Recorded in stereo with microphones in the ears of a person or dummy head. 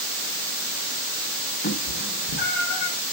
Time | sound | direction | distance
1.6 | a cat meowing | 60° left (ahead or behind) | 1.8 m